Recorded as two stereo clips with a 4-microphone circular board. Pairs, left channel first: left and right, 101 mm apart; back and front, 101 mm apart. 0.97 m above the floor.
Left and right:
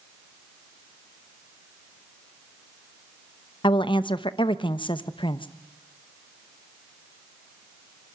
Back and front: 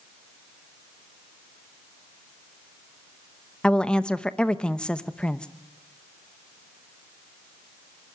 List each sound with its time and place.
3.6 s a woman speaking: 100° left, 0.9 m